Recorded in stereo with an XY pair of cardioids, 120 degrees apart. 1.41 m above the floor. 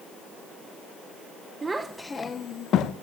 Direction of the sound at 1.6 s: 25° right.